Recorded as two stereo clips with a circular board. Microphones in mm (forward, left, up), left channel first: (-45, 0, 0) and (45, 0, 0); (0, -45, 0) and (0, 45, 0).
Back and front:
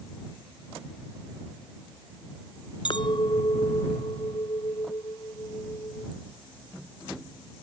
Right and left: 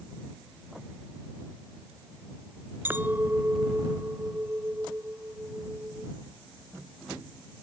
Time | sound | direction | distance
2.9 | a clink | 155° left | ?